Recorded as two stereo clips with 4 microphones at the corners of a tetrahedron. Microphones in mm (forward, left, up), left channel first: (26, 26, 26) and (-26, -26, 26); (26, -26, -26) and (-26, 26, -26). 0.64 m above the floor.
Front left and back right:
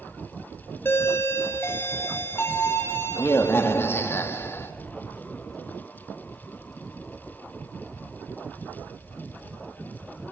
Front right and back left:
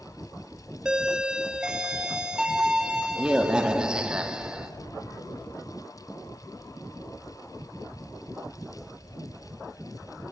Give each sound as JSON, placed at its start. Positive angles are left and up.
{"t": 0.8, "sound": "a doorbell", "azimuth_deg": 65, "distance_m": 1.7}